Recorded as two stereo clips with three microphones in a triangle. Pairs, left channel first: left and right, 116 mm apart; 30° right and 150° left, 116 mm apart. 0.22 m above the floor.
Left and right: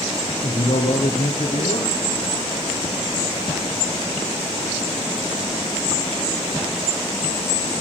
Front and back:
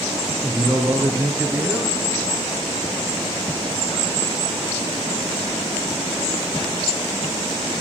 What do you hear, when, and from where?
0.4 s a man speaking: 75° left, 2.5 m